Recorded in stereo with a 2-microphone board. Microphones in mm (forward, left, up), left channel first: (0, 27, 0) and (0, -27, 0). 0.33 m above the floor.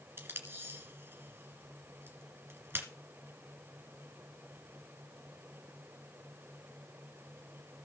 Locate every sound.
0.2 s tape being pulled: 50° right (ahead or behind), 2 m